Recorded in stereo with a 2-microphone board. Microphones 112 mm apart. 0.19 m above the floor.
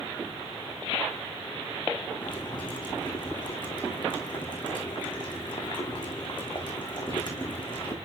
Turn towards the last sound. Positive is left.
turn(degrees=45)  # may be behind; listen again after turning